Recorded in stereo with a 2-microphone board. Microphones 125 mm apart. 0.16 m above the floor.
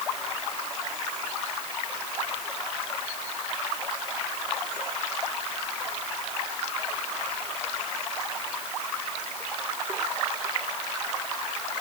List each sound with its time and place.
Only background noise.